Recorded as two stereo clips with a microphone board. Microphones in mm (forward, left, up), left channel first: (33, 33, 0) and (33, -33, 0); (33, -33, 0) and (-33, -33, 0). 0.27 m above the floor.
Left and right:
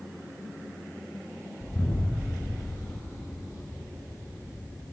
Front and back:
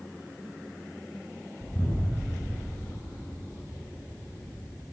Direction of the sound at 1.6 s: 45° left.